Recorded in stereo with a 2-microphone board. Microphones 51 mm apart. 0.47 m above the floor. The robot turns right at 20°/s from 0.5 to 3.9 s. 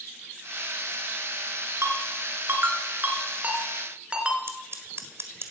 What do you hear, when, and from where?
1.8 s a ringtone: 60° right (ahead or behind), 2.5 m; by 4.4 s 20° right (ahead or behind), 2.5 m
4.5 s scissors: 60° right (ahead or behind), 1.6 m